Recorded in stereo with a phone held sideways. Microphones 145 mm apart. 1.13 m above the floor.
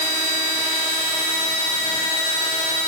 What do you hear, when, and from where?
Only background noise.